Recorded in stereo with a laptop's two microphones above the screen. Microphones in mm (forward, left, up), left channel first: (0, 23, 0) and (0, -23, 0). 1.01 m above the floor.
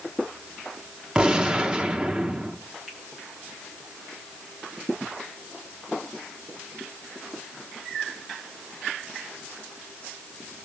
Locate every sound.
1.1 s a gunshot: 20° right (ahead or behind), 0.8 m
2.9 s a finger snap: 5° right (ahead or behind), 6 m